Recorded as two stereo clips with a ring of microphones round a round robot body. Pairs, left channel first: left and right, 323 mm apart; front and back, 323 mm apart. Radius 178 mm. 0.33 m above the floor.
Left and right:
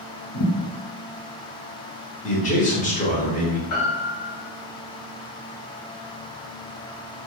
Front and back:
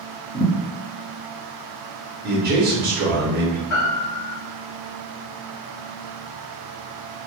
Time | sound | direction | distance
0.3 | a thud | 60° left | 1.0 m
2.2 | a man speaking | 140° left | 1.0 m
3.7 | a piano | 40° left | 0.9 m